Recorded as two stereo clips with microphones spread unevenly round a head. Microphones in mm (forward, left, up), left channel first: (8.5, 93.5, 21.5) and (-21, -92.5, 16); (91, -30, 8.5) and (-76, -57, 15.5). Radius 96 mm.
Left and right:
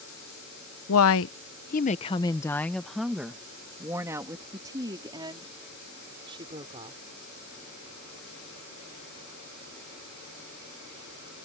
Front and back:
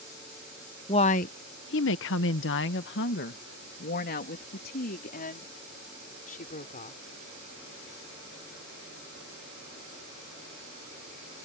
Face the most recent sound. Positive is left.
turn(degrees=-35)